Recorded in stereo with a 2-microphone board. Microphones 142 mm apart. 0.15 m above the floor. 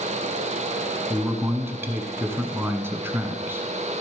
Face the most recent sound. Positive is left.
turn(degrees=-15)  # may be behind; listen again after turning